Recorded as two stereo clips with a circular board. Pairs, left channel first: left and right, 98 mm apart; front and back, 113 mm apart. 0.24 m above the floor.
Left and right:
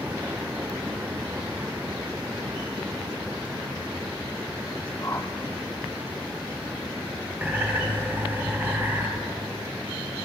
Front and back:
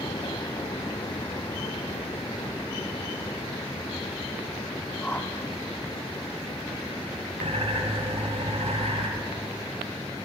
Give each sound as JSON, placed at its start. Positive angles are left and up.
{"t": 5.0, "sound": "a whoosh", "azimuth_deg": 60, "distance_m": 0.9}
{"t": 7.4, "sound": "a bird", "azimuth_deg": -160, "distance_m": 3.5}